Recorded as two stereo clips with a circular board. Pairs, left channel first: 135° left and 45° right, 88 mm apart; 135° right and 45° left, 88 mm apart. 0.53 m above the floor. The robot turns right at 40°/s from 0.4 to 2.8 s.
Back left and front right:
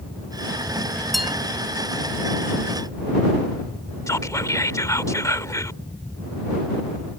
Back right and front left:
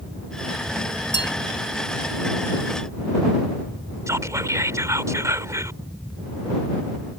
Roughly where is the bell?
Behind right.